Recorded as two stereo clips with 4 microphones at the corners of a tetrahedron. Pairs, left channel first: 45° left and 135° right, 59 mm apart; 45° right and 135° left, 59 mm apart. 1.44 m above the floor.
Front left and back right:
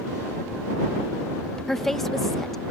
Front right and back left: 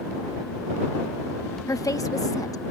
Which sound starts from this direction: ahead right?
A woman speaking, at 1.7 s.